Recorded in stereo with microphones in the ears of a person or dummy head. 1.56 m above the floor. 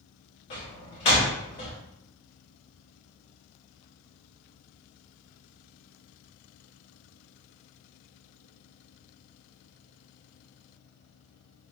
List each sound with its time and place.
0.5 s a door slam: 30° left (ahead or behind), 0.7 m